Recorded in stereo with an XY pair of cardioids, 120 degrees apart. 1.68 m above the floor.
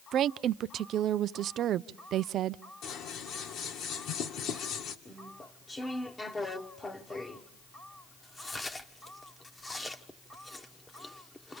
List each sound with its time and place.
0.1 s a woman speaking: 60° right, 0.5 m
2.8 s scissors: 70° left, 2 m
5.0 s chewing: 15° left, 1.2 m